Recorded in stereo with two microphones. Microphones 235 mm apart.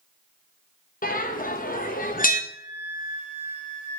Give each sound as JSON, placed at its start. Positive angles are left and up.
{"t": 1.0, "sound": "a bell", "side_deg": 35, "distance_m": 0.9}
{"t": 2.5, "sound": "a flute", "side_deg": -50, "distance_m": 3.0}